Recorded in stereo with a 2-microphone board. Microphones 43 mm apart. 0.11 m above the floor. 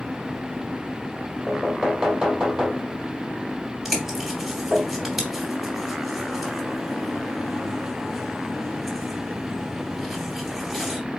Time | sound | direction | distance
1.5 | knocking | 15° right (ahead or behind) | 2.5 m
3.9 | a bird | centre (ahead or behind) | 2 m